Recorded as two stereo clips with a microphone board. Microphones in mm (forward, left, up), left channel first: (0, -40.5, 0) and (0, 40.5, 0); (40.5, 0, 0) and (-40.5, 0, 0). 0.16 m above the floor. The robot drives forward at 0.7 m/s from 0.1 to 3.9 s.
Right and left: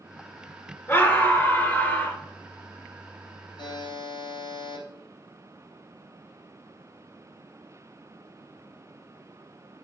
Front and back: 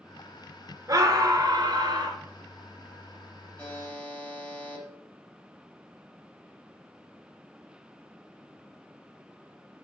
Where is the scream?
140° right, 2.5 m; by 2.2 s 155° right, 3 m.